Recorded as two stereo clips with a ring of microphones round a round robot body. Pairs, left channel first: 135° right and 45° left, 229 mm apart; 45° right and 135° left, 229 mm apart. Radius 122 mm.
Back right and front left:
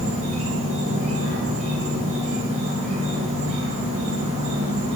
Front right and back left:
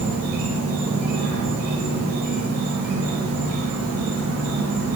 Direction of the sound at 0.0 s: 105° left.